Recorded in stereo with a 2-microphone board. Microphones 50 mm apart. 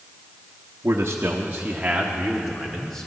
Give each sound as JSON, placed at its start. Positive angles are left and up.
{"t": 0.8, "sound": "a man speaking", "side_deg": -65, "distance_m": 1.1}